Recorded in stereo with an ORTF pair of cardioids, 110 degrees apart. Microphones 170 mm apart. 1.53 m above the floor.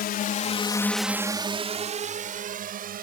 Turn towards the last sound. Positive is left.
turn(degrees=-60)